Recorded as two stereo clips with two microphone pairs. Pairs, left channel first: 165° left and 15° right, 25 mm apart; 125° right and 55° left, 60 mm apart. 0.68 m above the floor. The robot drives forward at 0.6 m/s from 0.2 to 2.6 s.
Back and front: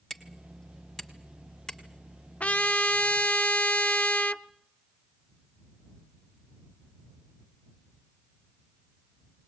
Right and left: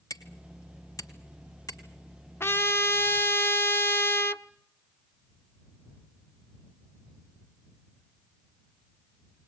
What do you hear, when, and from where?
0.1 s hammering: 110° right, 2.5 m; by 1.8 s 130° right, 3 m
2.4 s a trumpet: 170° right, 0.6 m